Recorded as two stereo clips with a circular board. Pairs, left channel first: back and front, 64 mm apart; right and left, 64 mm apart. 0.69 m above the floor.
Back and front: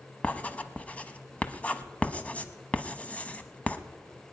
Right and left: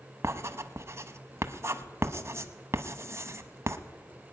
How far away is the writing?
About 0.8 m.